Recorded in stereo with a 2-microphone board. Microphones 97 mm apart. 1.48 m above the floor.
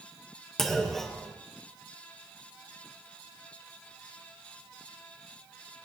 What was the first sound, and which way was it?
A clunk, 5° left (ahead or behind).